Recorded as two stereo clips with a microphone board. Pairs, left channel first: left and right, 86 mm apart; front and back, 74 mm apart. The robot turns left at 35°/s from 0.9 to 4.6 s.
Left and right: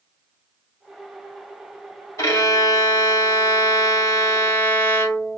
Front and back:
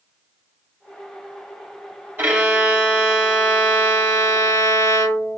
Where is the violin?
115° left, 1.8 m; by 5.4 s 30° left, 1.8 m.